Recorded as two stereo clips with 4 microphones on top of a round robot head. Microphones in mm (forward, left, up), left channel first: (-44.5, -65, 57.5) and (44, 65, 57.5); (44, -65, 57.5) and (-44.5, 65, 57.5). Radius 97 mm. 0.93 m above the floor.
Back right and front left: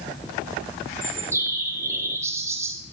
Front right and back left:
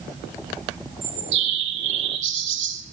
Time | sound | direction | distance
1.0 | a bird | 130° left | 1.4 m